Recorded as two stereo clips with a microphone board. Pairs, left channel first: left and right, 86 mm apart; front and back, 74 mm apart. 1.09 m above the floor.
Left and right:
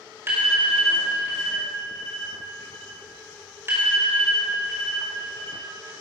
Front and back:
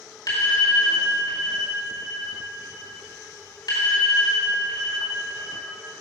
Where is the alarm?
30° right, 4 m.